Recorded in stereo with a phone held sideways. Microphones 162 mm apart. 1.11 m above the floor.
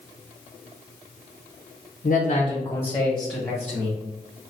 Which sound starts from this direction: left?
A man speaking, at 2.0 s.